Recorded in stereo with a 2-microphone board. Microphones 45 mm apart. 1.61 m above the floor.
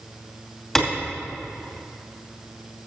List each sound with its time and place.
0.8 s a clap: 5° left (ahead or behind), 2.5 m